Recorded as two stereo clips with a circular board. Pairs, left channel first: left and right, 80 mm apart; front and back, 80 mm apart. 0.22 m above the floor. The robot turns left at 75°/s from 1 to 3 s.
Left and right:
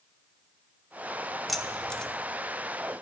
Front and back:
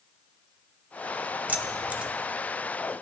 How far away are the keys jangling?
About 0.6 m.